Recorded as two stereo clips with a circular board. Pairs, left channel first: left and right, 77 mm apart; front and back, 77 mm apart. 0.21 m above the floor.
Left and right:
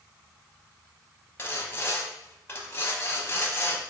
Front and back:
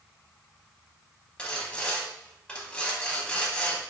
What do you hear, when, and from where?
1.4 s sawing: 65° left, 0.7 m